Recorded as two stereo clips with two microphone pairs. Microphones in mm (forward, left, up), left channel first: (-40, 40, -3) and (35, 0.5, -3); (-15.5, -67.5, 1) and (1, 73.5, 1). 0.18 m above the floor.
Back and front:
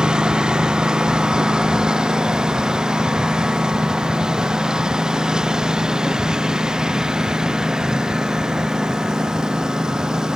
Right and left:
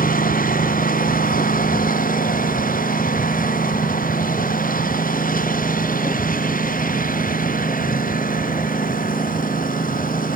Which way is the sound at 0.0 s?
110° right.